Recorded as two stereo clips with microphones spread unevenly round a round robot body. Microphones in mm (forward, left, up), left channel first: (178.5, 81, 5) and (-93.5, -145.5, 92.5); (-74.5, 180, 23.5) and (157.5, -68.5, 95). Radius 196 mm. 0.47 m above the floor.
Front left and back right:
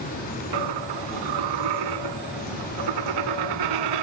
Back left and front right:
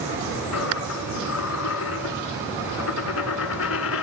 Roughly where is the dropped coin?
Behind.